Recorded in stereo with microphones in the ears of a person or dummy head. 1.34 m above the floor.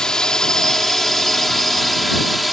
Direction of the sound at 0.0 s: 10° left (ahead or behind).